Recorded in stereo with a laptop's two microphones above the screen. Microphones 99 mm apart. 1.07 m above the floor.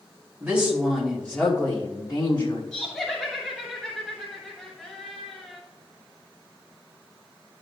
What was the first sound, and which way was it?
A woman speaking, 10° right (ahead or behind).